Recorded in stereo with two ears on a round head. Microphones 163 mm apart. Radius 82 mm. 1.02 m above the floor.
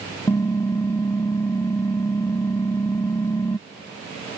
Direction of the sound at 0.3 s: 15° left (ahead or behind).